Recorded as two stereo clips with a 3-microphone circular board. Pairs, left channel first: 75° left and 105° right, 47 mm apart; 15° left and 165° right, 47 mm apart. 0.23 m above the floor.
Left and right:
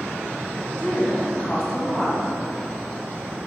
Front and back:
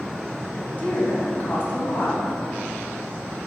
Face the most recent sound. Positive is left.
turn(degrees=10)